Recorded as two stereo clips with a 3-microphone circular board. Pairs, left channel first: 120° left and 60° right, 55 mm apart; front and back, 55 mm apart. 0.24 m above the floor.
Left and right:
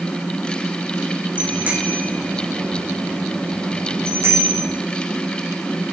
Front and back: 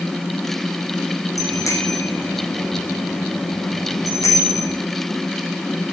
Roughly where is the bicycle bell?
Ahead.